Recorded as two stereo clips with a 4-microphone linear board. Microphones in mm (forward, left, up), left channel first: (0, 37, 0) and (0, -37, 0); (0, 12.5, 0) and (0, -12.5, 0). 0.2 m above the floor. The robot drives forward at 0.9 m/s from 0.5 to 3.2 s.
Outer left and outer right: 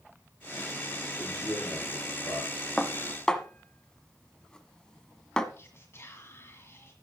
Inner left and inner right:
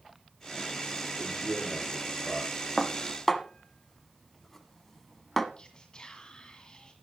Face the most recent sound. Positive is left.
turn(degrees=35)  # may be behind; listen again after turning